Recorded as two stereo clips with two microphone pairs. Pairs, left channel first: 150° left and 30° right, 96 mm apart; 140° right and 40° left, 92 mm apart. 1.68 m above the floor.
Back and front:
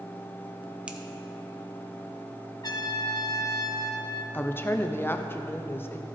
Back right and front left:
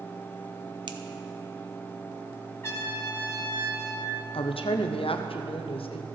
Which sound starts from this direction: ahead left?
A finger snap, at 0.9 s.